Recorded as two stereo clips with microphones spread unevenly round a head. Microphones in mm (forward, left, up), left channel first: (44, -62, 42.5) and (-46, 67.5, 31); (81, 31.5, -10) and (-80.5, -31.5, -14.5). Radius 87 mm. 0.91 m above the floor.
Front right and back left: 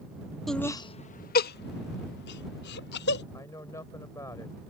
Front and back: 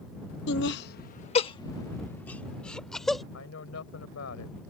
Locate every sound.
0.5 s laughter: 35° left; by 3.2 s 70° right
3.3 s a woman speaking: 15° left